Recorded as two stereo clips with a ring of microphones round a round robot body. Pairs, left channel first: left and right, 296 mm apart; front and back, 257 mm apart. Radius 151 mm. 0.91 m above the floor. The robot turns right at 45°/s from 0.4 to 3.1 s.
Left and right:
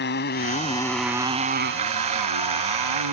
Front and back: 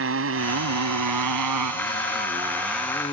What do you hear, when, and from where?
0.0 s a motorcycle: 145° left; by 3.1 s 75° right